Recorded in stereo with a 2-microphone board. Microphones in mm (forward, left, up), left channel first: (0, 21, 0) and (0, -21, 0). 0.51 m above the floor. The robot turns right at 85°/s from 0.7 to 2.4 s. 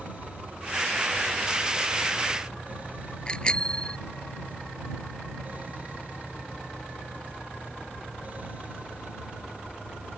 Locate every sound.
3.3 s a bicycle bell: 20° left (ahead or behind)